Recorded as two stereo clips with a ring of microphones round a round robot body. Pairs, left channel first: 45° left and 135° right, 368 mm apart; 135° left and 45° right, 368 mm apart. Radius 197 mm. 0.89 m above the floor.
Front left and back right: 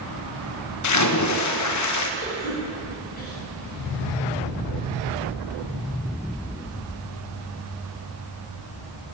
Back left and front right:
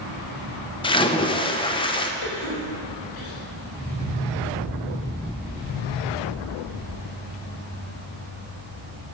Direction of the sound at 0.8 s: 65° left.